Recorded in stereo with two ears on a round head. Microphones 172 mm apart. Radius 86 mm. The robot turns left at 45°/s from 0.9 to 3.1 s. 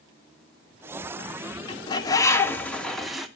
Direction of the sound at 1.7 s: 25° left (ahead or behind).